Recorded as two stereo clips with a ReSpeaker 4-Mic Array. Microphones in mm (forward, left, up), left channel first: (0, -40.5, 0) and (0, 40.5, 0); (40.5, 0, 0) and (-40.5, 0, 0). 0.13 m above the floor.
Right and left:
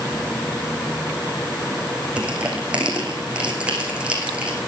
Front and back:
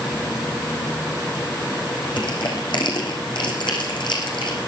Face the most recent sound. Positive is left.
turn(degrees=15)